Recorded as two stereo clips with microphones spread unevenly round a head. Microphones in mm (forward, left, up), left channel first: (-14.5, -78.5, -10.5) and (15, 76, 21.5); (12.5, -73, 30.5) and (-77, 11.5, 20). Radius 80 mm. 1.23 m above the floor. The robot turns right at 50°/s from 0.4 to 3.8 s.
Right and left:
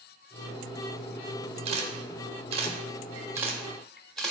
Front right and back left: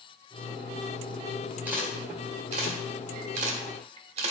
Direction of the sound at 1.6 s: 55° left.